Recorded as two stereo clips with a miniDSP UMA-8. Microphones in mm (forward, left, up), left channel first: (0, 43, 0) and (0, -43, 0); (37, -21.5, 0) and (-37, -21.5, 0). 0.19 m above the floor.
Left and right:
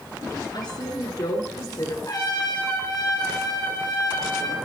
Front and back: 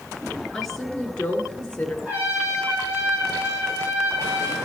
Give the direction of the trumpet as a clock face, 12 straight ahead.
8 o'clock.